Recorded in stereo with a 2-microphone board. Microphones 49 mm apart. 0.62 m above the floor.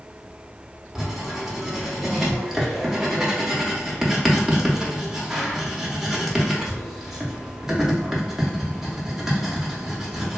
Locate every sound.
0.9 s writing: 5° right (ahead or behind), 0.6 m